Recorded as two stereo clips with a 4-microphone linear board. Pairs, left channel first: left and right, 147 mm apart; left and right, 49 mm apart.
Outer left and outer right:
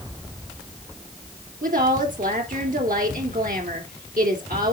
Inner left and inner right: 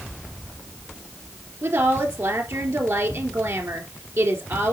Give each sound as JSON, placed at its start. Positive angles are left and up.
{"t": 1.6, "sound": "a woman speaking", "side_deg": -70, "distance_m": 3.0}